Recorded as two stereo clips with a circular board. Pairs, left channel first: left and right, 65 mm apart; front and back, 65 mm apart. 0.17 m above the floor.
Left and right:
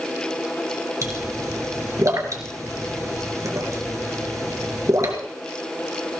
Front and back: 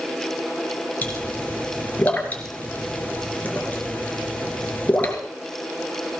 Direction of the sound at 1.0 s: 60° right.